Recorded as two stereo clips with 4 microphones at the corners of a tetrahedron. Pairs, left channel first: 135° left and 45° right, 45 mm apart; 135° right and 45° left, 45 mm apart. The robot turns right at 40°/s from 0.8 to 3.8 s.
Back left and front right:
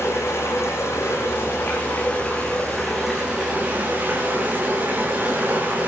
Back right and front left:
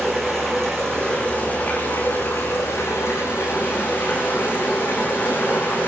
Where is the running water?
145° left, 9 m; by 5.9 s 95° right, 9 m.